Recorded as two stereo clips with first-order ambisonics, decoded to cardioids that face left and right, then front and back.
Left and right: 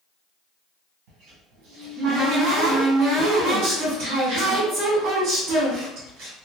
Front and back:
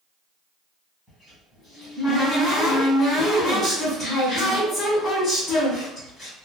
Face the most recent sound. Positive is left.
turn(degrees=-80)